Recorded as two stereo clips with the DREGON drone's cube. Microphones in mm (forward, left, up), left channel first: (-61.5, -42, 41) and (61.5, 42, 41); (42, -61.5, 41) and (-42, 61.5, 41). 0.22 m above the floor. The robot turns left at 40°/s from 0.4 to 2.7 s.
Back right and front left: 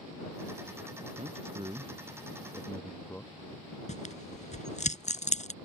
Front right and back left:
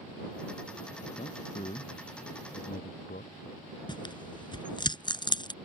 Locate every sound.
1.2 s a man speaking: 5° right; by 3.3 s 65° right
3.9 s tearing paper: 115° right